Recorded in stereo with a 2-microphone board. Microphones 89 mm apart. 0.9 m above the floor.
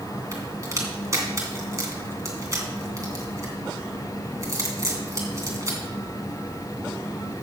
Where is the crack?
35° right (ahead or behind), 2.5 m.